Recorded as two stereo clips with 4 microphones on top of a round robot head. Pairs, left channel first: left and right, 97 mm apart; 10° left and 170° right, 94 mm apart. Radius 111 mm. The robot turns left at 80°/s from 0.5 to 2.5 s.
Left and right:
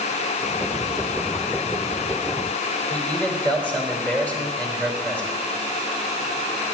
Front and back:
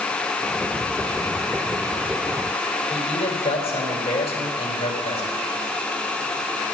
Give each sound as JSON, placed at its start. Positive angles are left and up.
{"t": 2.9, "sound": "a man speaking", "azimuth_deg": 15, "distance_m": 4.0}